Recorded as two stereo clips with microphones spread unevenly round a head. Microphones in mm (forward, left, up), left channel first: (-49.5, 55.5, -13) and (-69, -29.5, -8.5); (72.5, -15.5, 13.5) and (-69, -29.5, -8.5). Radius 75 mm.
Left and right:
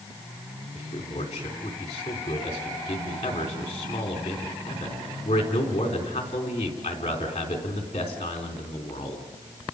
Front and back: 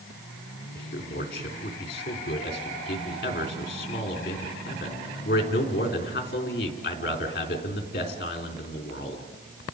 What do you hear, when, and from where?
0.8 s a man speaking: 40° left, 3.5 m